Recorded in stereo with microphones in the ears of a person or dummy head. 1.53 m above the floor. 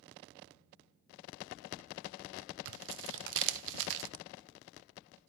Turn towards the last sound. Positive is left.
turn(degrees=-65)  # may be behind; listen again after turning